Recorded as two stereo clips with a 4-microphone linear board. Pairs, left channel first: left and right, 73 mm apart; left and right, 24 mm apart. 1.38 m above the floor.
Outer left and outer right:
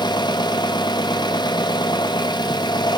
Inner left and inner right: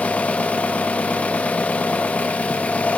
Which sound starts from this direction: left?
An engine running, at 0.0 s.